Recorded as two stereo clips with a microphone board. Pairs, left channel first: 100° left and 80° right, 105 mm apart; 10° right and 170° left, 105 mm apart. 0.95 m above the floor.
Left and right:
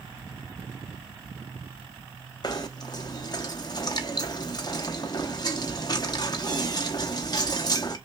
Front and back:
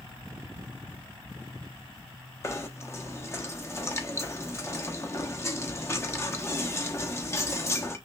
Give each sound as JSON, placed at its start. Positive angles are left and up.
{"t": 2.4, "sound": "knocking", "azimuth_deg": 50, "distance_m": 0.8}